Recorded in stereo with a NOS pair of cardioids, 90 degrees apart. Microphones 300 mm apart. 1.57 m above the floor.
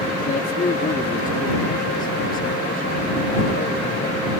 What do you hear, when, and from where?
0.2 s a man speaking: 30° left